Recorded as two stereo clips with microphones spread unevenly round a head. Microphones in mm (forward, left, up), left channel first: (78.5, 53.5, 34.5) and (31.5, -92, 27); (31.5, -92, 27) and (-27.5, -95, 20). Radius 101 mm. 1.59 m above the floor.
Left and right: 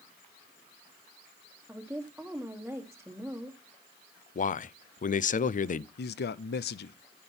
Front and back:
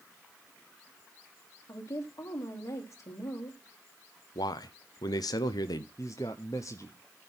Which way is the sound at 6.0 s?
65° left.